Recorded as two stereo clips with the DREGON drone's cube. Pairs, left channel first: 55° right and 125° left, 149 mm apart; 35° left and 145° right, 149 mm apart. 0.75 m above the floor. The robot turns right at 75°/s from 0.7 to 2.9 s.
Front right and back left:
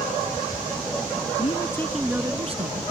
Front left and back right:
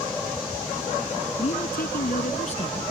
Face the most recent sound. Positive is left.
turn(degrees=105)